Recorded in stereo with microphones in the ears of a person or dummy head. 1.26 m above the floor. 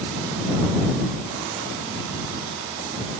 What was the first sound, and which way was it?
Only background noise.